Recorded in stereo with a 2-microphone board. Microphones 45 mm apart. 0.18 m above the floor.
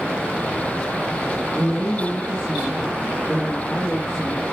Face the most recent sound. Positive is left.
turn(degrees=-10)  # may be behind; listen again after turning